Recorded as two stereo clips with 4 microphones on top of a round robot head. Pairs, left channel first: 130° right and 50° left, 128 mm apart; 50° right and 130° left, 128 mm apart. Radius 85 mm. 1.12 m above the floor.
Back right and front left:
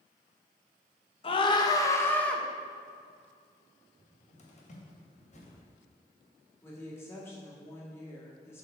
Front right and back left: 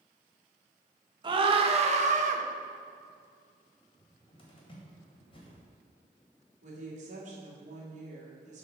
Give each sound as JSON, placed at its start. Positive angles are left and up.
{"t": 1.2, "sound": "a scream", "azimuth_deg": -175, "distance_m": 1.2}
{"t": 4.0, "sound": "a cupboard door", "azimuth_deg": -100, "distance_m": 1.9}
{"t": 6.6, "sound": "a woman speaking", "azimuth_deg": 160, "distance_m": 2.0}